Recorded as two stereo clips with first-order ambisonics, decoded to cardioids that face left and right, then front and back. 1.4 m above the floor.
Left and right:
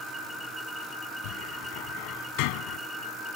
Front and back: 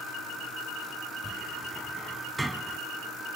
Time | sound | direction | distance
1.2 | a cupboard door | 95° left | ?